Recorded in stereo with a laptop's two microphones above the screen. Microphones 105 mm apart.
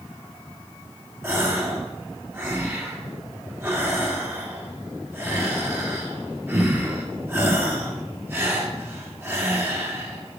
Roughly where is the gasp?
Right.